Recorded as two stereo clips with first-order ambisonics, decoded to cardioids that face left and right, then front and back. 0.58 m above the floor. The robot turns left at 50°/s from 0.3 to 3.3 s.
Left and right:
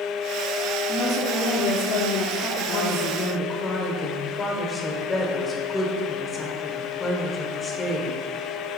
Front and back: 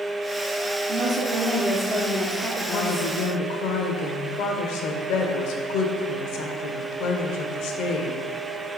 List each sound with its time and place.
0.9 s a woman speaking: 150° left, 0.9 m; by 3.1 s 40° left, 0.9 m
2.7 s a woman speaking: 50° left, 1.4 m; by 8.2 s 20° left, 1.4 m